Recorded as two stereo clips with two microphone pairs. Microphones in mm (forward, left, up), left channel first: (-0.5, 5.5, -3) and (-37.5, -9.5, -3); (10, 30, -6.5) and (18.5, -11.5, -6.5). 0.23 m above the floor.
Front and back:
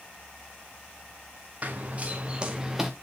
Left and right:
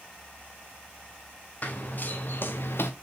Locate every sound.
1.6 s running footsteps: 150° left, 1.8 m; by 2.9 s 120° left, 1.2 m